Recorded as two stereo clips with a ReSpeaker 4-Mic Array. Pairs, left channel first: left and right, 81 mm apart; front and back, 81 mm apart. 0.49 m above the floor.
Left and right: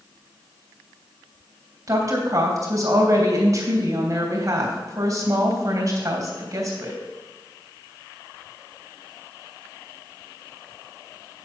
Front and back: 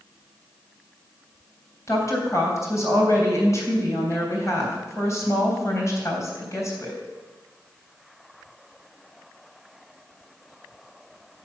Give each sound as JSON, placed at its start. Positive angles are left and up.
{"t": 1.9, "sound": "a woman speaking", "azimuth_deg": -45, "distance_m": 3.0}